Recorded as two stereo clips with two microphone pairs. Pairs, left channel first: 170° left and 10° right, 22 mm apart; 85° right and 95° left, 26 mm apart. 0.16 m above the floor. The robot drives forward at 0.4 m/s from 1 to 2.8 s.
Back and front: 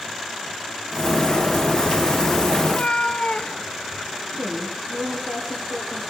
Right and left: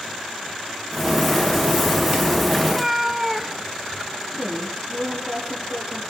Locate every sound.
2.6 s a cat meowing: 175° left, 1.0 m
4.3 s a woman speaking: 10° left, 6 m